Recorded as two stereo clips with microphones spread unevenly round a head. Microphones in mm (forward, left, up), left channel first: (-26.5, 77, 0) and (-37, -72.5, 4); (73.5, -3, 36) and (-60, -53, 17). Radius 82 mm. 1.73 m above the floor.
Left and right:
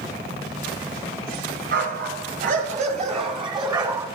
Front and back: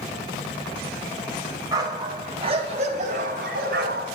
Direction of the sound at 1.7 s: 95° right.